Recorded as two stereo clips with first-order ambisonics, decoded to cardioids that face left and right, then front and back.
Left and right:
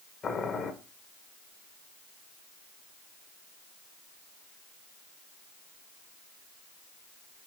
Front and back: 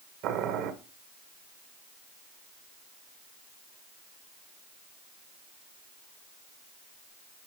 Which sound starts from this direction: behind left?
Boiling, at 0.2 s.